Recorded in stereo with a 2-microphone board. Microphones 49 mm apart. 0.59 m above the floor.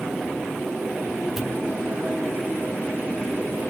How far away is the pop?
About 0.6 m.